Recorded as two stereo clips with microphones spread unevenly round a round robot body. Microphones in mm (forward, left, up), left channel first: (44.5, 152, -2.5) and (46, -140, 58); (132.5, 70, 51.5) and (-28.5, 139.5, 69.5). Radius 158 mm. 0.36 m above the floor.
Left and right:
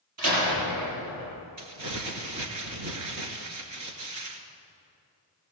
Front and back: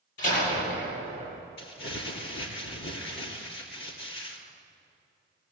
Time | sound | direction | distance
0.2 | a door slam | 50° right | 9 m
1.6 | crumpling | 60° right | 2.5 m